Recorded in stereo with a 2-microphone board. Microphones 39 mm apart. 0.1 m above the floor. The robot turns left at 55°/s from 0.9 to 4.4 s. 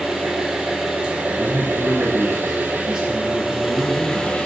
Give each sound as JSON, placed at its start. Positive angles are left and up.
{"t": 0.0, "sound": "an engine running", "azimuth_deg": -20, "distance_m": 0.7}
{"t": 1.2, "sound": "a man speaking", "azimuth_deg": 45, "distance_m": 1.3}